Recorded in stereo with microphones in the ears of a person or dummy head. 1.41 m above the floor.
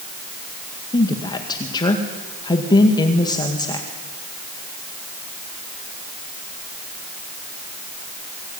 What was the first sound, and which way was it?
A woman speaking, 25° left (ahead or behind).